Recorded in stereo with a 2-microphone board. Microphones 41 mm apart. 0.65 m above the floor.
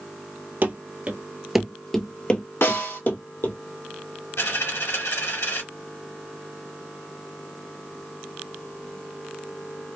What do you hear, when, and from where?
0.6 s running footsteps: 45° right (ahead or behind), 0.8 m; by 3.5 s 50° left (ahead or behind), 1.3 m
2.6 s a snare drum: 80° left, 1.5 m
4.4 s a dropped coin: 85° left, 1.6 m